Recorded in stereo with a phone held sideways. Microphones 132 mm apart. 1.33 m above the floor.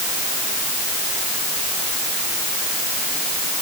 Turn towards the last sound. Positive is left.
No sound to turn to.